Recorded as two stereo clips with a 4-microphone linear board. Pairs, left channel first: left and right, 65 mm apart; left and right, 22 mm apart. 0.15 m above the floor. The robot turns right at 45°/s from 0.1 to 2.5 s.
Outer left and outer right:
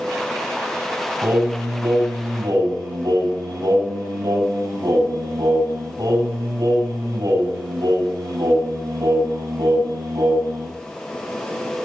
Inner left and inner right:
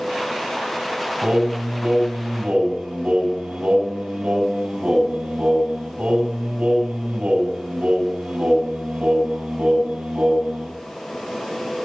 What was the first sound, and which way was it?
Singing, 145° right.